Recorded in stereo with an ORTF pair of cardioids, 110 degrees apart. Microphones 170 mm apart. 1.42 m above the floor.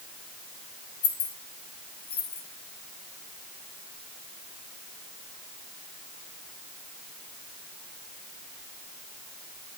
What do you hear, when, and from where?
1.0 s keys jangling: 65° left, 2 m